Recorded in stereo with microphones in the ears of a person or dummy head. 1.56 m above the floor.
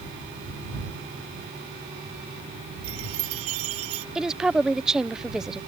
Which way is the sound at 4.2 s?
5° right (ahead or behind).